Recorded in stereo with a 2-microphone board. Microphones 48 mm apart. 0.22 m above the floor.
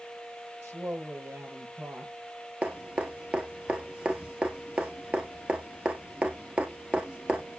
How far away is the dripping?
About 1.6 m.